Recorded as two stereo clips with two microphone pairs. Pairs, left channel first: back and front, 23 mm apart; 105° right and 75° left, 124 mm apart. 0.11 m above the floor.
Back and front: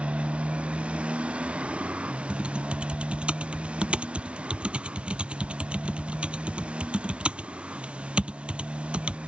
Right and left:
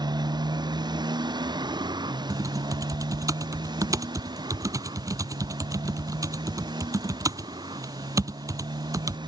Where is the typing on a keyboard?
15° left.